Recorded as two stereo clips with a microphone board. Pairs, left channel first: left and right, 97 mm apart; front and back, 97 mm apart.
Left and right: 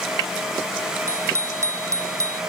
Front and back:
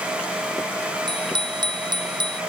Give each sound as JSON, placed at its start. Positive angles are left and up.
{"t": 1.1, "sound": "a bicycle bell", "azimuth_deg": -150}